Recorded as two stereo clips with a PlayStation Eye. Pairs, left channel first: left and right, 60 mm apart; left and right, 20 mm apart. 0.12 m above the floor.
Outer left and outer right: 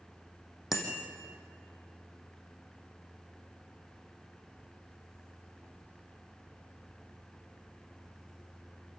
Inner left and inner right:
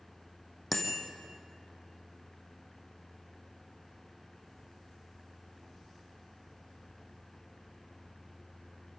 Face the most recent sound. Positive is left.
turn(degrees=-5)  # may be behind; listen again after turning